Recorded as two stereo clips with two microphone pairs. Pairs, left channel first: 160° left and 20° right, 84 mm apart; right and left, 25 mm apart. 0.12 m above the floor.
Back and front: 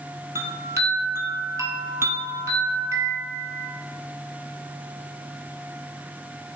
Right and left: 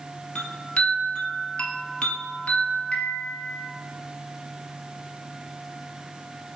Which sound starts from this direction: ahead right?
A chime, at 0.3 s.